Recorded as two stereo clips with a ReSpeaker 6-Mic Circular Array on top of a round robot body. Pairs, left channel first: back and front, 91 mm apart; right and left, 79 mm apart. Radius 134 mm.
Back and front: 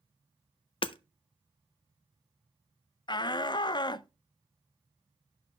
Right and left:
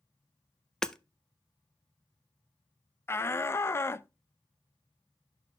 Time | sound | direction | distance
0.8 | hammering | 170° right | 0.6 m
3.1 | a shout | 145° right | 0.6 m